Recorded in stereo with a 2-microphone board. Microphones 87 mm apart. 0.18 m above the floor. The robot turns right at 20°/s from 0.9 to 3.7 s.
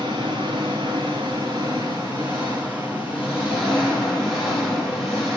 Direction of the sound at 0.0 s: 55° right.